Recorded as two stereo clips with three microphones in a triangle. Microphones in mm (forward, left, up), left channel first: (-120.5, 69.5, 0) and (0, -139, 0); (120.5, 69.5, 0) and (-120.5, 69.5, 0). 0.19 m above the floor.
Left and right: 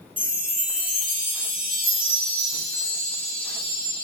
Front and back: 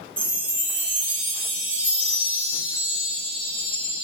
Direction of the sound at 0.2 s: 15° right.